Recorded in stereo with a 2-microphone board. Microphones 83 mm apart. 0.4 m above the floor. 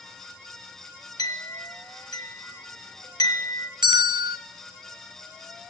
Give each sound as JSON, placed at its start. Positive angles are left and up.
{"t": 1.2, "sound": "a clink", "side_deg": 55, "distance_m": 3.0}
{"t": 3.8, "sound": "a bell", "side_deg": -70, "distance_m": 0.9}